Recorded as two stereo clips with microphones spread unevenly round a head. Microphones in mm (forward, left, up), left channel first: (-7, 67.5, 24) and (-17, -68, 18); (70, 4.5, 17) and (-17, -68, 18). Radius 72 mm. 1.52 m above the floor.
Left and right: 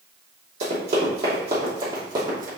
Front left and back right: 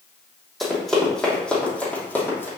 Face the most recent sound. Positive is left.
turn(degrees=-30)